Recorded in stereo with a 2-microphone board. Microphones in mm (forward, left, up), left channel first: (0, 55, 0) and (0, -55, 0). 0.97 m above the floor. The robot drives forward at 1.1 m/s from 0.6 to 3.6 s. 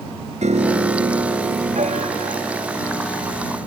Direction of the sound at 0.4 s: 85° right.